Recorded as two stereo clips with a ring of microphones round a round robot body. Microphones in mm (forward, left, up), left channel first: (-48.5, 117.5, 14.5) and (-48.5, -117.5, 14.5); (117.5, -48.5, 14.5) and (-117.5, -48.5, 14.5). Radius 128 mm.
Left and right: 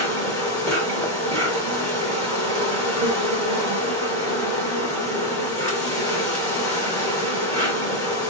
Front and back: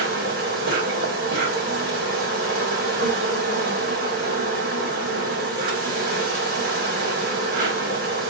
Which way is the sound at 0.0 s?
170° left.